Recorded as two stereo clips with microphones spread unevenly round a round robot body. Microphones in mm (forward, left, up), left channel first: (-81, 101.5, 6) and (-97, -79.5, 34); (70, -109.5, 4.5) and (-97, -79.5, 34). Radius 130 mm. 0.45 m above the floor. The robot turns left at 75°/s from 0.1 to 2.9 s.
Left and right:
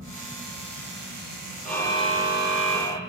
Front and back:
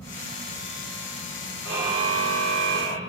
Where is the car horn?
170° left, 6.5 m; by 3.0 s 75° left, 6.5 m.